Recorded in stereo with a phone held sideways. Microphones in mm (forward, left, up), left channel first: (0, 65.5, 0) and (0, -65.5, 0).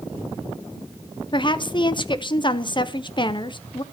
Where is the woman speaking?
40° left (ahead or behind), 0.6 m.